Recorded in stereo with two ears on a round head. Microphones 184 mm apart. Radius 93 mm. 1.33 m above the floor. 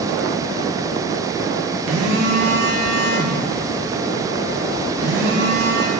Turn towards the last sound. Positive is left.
turn(degrees=-70)  # may be behind; listen again after turning